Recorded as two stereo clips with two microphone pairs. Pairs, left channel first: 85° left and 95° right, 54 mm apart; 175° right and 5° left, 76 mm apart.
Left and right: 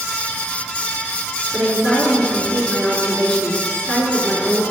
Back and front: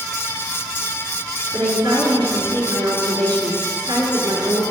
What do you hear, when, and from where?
1.5 s a woman speaking: 5° left, 6 m